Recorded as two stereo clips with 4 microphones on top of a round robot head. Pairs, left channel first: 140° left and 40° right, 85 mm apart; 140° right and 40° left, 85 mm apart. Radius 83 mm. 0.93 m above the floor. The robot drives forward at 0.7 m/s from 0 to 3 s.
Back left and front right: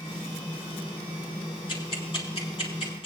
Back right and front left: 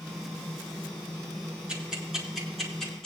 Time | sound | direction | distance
1.7 | ticking | 120° left | 2 m